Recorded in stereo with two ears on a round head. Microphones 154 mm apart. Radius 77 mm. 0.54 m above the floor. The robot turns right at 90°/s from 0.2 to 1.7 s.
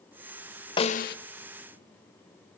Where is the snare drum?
30° left, 0.7 m; by 1.2 s 65° left, 0.7 m.